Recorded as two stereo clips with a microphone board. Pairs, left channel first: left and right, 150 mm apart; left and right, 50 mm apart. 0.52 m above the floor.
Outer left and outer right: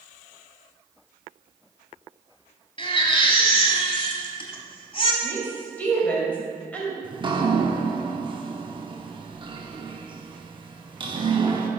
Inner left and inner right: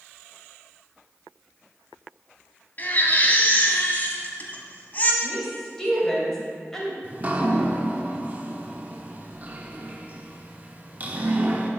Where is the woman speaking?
10° left (ahead or behind), 2.5 m.